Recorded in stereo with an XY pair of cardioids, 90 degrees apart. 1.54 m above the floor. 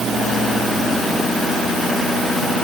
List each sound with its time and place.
Only background noise.